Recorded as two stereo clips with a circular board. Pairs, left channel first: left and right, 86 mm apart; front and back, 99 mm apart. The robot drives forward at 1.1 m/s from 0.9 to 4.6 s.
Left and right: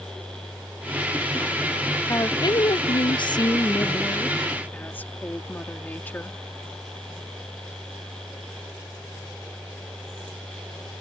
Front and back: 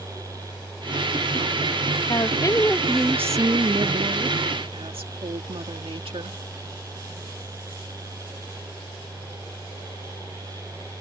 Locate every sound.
2.1 s a woman speaking: 40° left; by 6.4 s 155° left